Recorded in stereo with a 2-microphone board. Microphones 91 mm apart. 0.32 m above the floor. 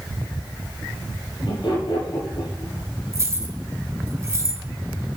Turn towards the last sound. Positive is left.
turn(degrees=-35)  # may be behind; listen again after turning